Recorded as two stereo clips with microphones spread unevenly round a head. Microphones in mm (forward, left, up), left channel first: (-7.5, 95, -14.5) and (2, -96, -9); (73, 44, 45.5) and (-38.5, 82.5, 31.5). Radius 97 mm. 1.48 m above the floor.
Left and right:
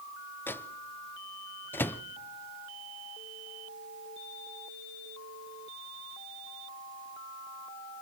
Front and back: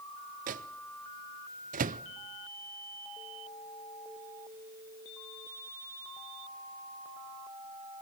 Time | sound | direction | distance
0.5 | a microwave | 175° left | 0.5 m